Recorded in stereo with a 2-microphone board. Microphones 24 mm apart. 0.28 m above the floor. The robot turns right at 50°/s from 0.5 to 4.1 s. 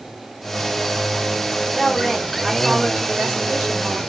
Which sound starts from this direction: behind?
A woman speaking, at 1.6 s.